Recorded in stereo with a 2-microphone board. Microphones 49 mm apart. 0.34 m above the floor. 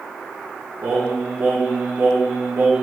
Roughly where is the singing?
Right.